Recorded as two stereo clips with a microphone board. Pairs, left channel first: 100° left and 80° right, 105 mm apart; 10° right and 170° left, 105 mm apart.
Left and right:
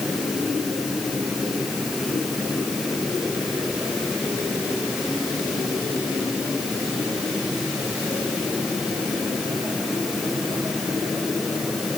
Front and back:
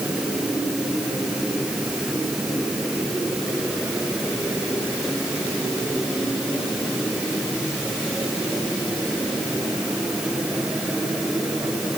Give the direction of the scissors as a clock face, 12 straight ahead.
I don't hear scissors.